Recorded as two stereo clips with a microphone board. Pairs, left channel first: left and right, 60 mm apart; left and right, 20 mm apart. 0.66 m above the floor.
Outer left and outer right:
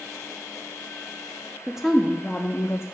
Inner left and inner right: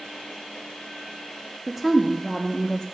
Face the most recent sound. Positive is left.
turn(degrees=45)  # may be behind; listen again after turning